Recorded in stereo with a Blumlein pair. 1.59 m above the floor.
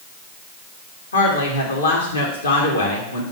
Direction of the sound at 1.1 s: 70° left.